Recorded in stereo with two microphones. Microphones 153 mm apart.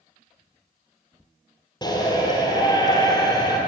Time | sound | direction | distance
1.8 | a shout | 30° left (ahead or behind) | 2.5 m